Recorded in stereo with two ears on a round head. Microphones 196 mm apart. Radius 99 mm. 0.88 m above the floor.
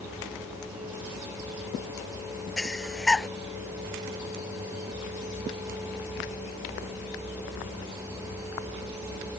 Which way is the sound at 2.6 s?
Centre (ahead or behind).